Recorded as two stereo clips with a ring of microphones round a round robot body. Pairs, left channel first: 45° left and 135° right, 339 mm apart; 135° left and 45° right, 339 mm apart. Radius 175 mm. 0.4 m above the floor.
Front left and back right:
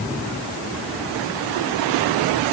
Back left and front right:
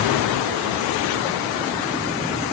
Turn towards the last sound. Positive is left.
No sound to turn to.